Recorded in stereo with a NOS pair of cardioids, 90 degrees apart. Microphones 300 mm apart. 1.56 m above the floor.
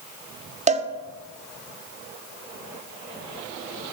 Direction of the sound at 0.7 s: 25° right.